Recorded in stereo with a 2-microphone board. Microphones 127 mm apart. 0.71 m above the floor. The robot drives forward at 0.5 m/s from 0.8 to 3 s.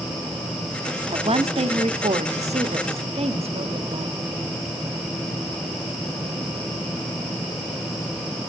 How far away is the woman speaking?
About 0.9 m.